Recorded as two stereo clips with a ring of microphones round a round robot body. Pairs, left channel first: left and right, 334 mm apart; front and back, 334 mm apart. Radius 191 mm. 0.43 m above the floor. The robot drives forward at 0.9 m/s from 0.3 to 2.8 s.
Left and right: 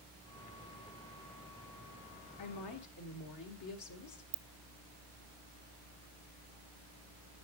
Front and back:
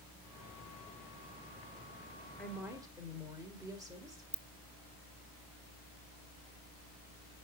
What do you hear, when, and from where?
2.4 s a woman speaking: 85° left, 1.6 m; by 4.2 s 100° left, 1.6 m
4.3 s a ringtone: 95° right, 0.7 m